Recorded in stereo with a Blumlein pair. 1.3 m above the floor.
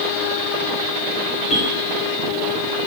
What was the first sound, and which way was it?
A bell, 35° left.